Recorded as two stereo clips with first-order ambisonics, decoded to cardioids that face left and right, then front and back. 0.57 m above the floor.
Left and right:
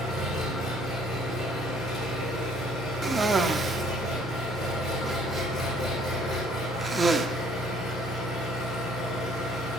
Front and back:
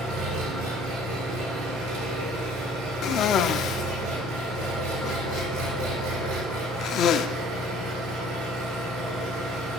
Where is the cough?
20° right, 0.8 m.